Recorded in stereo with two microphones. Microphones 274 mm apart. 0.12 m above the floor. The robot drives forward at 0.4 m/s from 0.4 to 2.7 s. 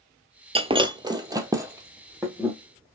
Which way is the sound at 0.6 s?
20° right (ahead or behind).